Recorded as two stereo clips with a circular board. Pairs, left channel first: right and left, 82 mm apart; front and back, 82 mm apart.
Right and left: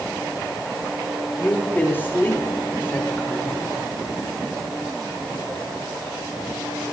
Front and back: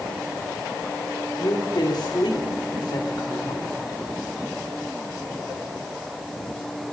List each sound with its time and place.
1.4 s a woman speaking: 25° right, 2.5 m